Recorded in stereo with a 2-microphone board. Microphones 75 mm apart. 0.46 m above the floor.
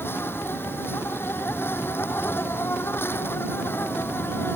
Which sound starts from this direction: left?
An insect, at 0.0 s.